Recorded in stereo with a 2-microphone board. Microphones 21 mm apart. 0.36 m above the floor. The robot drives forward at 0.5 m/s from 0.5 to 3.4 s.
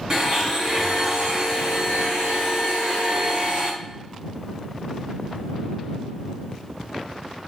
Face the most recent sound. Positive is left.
turn(degrees=-40)  # may be behind; listen again after turning